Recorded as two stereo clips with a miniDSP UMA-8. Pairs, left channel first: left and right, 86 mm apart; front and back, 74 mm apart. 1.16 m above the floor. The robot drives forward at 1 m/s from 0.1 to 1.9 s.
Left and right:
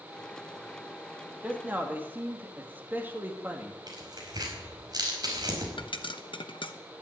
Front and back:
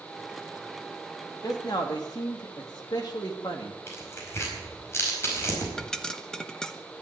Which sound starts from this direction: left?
A pop, at 5.8 s.